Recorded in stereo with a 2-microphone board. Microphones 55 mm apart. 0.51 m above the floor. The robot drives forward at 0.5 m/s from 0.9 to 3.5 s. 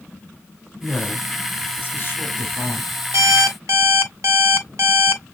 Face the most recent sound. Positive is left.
turn(degrees=-75)  # may be behind; listen again after turning